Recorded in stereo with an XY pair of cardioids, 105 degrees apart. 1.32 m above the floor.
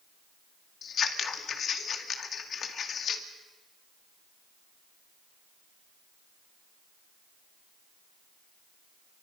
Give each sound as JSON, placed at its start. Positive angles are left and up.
{"t": 0.8, "sound": "scissors", "azimuth_deg": 55, "distance_m": 2.0}